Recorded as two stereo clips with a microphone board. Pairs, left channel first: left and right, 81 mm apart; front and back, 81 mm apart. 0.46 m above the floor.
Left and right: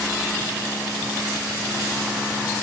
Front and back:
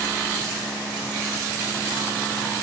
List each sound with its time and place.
Only background noise.